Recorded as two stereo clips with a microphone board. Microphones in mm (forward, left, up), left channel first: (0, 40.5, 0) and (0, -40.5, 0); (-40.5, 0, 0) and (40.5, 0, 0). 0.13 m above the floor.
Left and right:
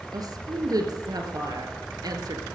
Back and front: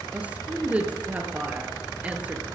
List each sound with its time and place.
0.1 s a woman speaking: 70° right, 2.5 m